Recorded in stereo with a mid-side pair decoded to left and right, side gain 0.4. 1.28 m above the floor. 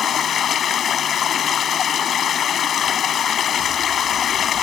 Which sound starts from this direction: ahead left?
Running water, at 0.0 s.